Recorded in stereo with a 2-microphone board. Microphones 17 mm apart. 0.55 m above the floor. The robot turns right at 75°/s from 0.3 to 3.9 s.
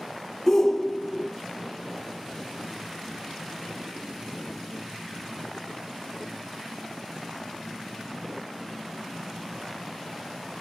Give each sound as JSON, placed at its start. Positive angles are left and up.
{"t": 0.5, "sound": "a shout", "side_deg": 20, "distance_m": 0.7}